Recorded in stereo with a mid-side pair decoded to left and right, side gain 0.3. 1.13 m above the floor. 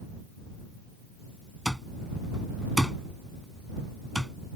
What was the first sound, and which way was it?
An alarm clock, 5° right.